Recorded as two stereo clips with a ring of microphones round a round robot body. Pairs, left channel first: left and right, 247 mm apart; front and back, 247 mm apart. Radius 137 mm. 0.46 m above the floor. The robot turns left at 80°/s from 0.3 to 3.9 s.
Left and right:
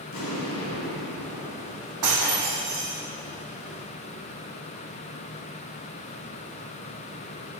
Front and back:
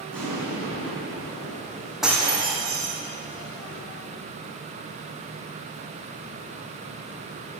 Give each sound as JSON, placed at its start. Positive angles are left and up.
{"t": 0.1, "sound": "an explosion", "azimuth_deg": 85, "distance_m": 3.5}
{"t": 2.0, "sound": "breaking glass", "azimuth_deg": -90, "distance_m": 2.0}